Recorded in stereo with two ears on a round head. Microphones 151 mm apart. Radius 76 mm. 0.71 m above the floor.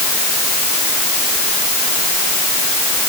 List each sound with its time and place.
Only background noise.